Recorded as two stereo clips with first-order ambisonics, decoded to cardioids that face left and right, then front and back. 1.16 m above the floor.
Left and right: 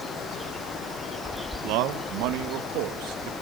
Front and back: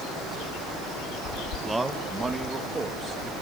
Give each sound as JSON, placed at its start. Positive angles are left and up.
{"t": 1.6, "sound": "a man speaking", "azimuth_deg": -95, "distance_m": 1.2}